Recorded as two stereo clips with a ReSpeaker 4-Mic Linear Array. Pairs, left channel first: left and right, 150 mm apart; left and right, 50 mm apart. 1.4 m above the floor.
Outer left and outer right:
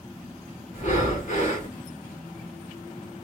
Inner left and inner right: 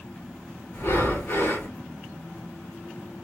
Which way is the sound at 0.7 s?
55° left (ahead or behind).